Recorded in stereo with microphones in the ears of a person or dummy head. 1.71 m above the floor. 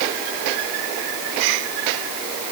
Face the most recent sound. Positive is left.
No sound to turn to.